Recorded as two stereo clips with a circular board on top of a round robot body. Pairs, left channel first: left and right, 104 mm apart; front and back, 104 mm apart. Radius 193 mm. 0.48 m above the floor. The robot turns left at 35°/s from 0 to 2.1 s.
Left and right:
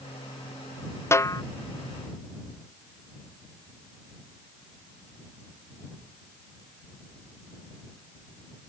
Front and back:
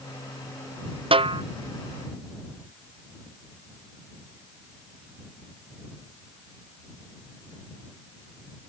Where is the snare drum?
155° left; by 1.4 s 145° left.